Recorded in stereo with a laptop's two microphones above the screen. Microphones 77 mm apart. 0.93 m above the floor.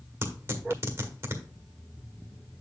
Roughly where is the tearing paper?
Right.